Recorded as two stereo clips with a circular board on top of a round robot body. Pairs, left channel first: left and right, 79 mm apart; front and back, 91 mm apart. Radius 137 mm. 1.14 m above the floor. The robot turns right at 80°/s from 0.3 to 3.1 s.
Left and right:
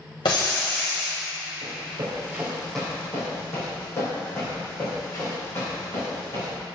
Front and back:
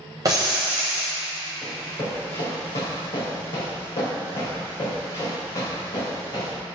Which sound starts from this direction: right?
Running footsteps, at 1.6 s.